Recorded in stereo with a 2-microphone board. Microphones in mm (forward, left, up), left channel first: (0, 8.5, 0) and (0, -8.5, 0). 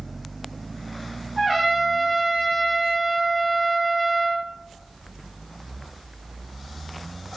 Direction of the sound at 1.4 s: Centre (ahead or behind).